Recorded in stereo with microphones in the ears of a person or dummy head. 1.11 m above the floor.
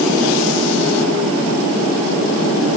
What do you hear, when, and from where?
Only background noise.